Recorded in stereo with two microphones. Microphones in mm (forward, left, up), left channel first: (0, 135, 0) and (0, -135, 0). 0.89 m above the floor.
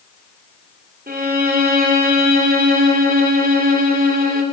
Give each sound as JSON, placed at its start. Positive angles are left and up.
{"t": 1.1, "sound": "a violin", "side_deg": -35, "distance_m": 2.5}